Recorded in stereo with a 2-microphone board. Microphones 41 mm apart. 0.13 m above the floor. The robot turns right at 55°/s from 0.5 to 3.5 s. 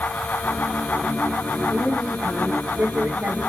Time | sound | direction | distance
1.7 | a woman speaking | 175° right | 4.5 m